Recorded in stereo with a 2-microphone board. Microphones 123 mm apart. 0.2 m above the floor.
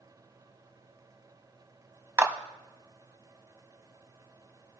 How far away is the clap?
About 0.9 m.